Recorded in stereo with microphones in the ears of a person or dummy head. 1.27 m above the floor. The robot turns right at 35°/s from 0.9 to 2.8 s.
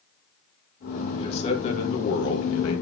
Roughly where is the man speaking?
Ahead left.